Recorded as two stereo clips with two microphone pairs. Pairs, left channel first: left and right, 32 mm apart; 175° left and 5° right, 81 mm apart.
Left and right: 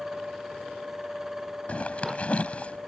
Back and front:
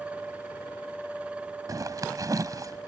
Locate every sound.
1.7 s a zipper: 40° left